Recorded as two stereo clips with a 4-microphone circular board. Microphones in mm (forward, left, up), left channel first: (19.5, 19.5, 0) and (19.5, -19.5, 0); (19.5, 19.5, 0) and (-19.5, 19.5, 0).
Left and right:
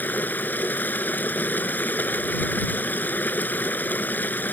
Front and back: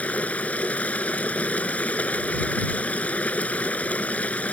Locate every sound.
0.0 s running water: 55° left